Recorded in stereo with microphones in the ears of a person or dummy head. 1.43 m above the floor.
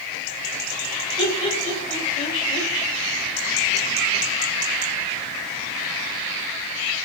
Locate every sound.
1.2 s laughter: 30° left (ahead or behind), 2.5 m